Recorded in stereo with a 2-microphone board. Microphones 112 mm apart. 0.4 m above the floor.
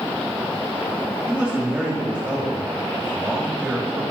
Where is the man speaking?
10° right (ahead or behind), 1.8 m.